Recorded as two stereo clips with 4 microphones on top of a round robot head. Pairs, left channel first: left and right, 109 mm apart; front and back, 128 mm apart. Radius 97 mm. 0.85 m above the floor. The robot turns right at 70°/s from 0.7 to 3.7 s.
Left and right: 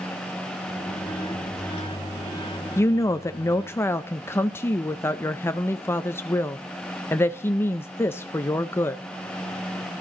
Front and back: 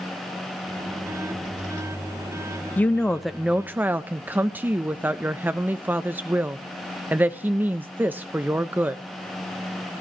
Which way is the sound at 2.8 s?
55° left.